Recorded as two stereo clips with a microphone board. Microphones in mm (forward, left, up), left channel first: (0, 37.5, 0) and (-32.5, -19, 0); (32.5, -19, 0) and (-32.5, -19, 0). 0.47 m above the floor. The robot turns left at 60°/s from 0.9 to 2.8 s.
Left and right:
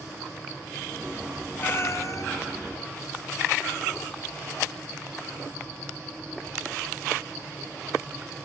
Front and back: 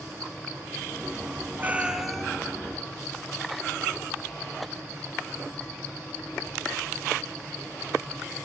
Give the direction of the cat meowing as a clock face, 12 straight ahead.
8 o'clock.